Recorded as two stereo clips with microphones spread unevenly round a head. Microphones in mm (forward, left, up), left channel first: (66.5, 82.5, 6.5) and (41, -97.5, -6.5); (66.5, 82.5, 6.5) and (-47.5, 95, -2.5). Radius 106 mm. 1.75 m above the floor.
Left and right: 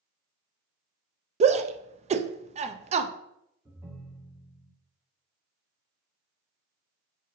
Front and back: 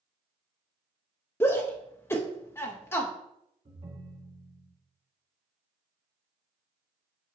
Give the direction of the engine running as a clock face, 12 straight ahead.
No engine running in this recording.